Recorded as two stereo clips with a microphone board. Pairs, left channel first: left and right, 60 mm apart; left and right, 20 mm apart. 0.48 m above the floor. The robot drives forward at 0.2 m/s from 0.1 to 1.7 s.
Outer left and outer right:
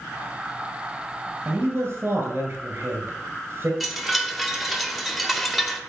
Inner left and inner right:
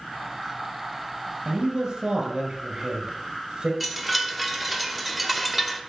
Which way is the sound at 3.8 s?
5° right (ahead or behind).